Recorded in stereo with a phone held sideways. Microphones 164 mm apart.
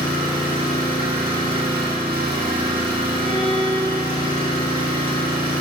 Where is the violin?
35° left (ahead or behind), 1.2 m.